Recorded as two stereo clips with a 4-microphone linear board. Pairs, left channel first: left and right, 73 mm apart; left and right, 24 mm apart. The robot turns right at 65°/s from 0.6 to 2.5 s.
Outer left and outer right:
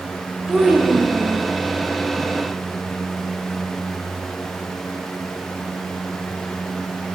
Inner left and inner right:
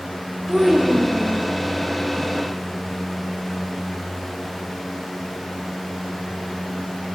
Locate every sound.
0.5 s a child speaking: 170° right, 2.5 m; by 1.5 s 115° right, 2.5 m